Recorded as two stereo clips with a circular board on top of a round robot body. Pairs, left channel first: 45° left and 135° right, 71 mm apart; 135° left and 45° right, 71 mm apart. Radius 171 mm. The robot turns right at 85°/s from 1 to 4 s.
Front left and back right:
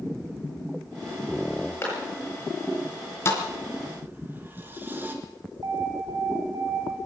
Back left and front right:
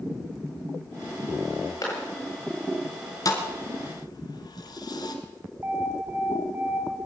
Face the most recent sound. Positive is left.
turn(degrees=-105)